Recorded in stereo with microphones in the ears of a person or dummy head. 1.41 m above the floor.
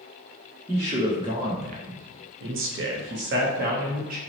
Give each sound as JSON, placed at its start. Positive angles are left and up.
{"t": 0.7, "sound": "a man speaking", "side_deg": -15, "distance_m": 0.9}